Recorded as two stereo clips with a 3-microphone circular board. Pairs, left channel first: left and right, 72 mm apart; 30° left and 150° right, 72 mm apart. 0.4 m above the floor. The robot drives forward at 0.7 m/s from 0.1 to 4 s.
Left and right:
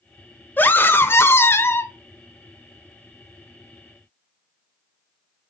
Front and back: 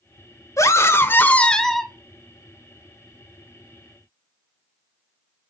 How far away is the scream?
About 1.1 m.